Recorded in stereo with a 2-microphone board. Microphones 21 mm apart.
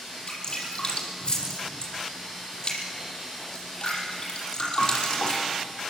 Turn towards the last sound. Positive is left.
turn(degrees=35)  # may be behind; listen again after turning